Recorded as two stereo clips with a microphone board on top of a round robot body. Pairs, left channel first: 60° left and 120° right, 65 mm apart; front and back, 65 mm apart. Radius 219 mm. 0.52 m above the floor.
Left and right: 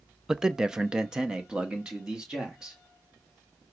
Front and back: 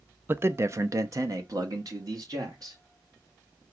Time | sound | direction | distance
0.3 | a man speaking | 165° left | 0.7 m